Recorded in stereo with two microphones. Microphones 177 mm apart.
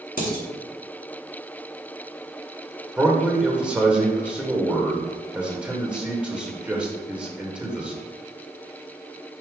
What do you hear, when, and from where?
0.2 s dishes clattering: 55° left (ahead or behind), 3 m
3.0 s a man speaking: 5° right (ahead or behind), 1.3 m